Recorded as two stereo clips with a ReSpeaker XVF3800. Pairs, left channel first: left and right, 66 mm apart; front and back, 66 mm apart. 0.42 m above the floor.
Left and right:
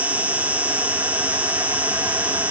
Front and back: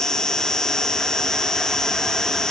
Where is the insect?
65° right.